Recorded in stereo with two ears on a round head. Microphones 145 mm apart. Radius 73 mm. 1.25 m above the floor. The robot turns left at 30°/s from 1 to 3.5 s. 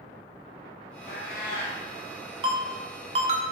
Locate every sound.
1.1 s a cat meowing: 55° left (ahead or behind), 1.2 m; by 1.8 s 45° left (ahead or behind), 1.2 m
2.4 s a ringtone: 30° right (ahead or behind), 0.6 m; by 3.5 s 45° right (ahead or behind), 0.6 m